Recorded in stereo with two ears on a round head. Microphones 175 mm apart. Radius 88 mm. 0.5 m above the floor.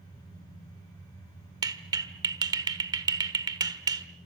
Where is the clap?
20° right (ahead or behind), 1.3 m.